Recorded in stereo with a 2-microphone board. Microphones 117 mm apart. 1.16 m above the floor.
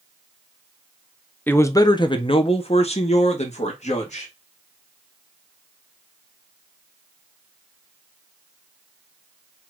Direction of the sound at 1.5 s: 15° left (ahead or behind).